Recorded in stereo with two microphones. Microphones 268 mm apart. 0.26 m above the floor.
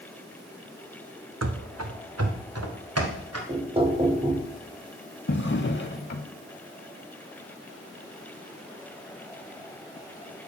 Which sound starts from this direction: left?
A drawer, at 5.3 s.